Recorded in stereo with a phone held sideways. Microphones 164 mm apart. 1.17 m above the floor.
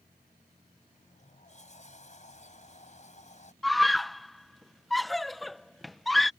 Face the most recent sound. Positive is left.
turn(degrees=0)  # may be behind; listen again after turning